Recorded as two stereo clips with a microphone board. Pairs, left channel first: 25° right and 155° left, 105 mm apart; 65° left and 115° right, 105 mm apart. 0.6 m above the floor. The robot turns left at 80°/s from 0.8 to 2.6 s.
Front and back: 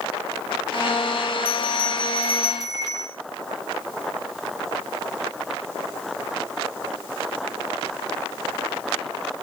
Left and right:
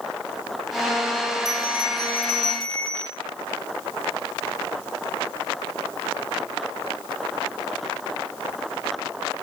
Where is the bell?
160° right, 3 m; by 3.2 s 105° left, 3 m.